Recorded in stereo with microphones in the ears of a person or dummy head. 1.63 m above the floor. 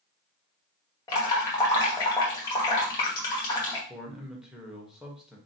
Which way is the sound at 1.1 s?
20° left (ahead or behind).